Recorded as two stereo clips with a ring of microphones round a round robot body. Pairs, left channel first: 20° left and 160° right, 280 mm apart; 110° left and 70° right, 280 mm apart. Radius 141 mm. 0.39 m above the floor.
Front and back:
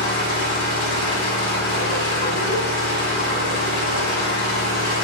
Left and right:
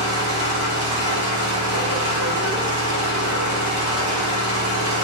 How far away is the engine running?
About 2 m.